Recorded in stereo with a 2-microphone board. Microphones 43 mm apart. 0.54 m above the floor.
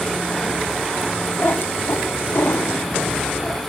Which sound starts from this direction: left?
A cat meowing, at 1.4 s.